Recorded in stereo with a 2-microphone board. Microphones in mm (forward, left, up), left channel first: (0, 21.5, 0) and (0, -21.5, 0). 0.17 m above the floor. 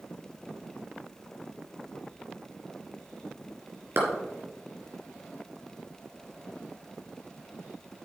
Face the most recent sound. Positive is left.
turn(degrees=-70)  # may be behind; listen again after turning